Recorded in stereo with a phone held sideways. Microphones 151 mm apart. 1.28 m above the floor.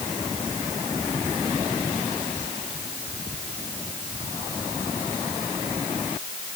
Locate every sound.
Only background noise.